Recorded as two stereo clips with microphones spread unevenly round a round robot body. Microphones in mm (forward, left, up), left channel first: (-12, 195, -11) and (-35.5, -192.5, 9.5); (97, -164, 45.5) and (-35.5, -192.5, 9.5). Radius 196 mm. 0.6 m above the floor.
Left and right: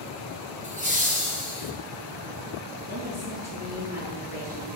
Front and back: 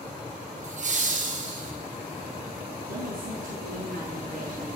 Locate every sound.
0.6 s laughter: 165° right, 3 m
2.9 s a woman speaking: 165° right, 7 m